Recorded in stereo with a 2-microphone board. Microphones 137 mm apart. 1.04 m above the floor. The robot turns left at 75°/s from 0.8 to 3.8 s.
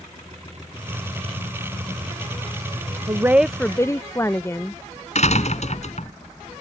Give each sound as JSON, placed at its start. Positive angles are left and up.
{"t": 3.1, "sound": "a woman speaking", "azimuth_deg": -150}
{"t": 5.2, "sound": "a door slam", "side_deg": 55}